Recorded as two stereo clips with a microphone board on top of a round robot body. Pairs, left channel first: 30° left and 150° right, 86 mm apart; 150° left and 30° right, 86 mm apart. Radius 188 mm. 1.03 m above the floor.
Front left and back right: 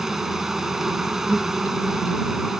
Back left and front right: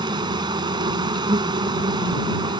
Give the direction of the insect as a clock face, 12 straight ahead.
2 o'clock.